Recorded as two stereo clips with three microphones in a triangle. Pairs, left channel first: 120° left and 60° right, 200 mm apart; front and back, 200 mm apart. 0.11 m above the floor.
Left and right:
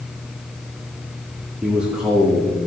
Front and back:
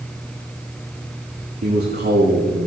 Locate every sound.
1.6 s a man speaking: 145° right, 5.5 m; by 2.7 s 155° right, 5 m